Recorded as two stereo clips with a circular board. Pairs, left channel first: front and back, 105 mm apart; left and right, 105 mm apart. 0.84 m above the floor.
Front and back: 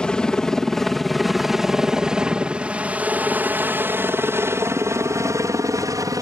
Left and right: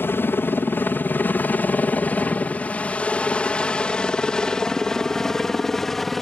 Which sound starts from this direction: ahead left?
A helicopter, at 0.0 s.